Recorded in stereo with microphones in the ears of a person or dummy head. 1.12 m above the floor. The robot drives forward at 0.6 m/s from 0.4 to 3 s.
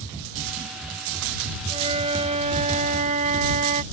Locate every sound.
1.7 s a flute: 30° right (ahead or behind); by 3.8 s 40° right (ahead or behind)